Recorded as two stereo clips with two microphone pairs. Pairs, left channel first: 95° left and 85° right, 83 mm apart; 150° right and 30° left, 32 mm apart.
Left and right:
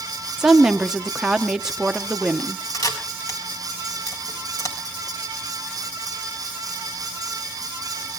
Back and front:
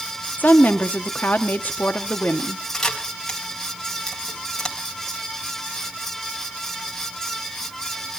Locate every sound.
0.4 s a woman speaking: 170° right, 1.4 m
2.7 s a camera shutter: 130° left, 3.5 m